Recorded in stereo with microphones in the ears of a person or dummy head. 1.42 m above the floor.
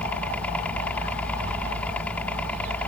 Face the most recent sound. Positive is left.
turn(degrees=10)  # may be behind; listen again after turning